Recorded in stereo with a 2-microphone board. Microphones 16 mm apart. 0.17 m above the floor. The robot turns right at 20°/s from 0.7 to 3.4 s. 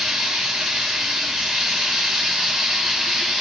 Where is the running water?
85° right, 2 m; by 3.4 s 30° right, 2 m.